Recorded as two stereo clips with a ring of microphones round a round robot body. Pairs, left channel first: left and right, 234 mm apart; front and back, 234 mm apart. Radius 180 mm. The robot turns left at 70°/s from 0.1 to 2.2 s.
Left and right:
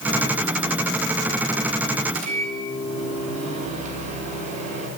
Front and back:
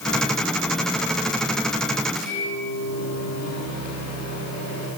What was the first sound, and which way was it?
A microwave, 105° right.